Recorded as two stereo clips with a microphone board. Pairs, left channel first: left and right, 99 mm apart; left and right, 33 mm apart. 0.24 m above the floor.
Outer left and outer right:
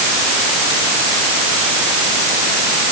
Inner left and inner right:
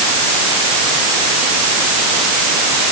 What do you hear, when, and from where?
Only background noise.